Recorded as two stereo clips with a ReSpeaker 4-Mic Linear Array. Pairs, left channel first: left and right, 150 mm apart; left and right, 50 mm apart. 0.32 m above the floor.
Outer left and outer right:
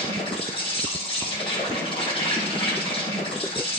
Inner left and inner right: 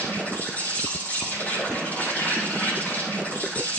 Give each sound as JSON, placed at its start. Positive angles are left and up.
{"t": 0.0, "sound": "an insect", "side_deg": 35, "distance_m": 3.0}